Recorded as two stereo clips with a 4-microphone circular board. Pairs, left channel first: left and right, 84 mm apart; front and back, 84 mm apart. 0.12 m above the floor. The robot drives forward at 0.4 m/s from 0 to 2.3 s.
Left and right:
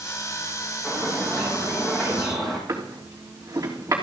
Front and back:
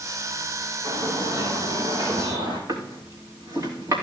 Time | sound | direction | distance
0.8 | a bird | 175° left | 4.5 m
2.7 | a drawer | 140° right | 3.5 m